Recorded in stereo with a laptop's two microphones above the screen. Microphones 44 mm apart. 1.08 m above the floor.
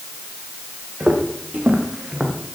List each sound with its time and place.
1.0 s footsteps: 25° right (ahead or behind), 3.5 m; by 2.5 s 5° right (ahead or behind), 2.5 m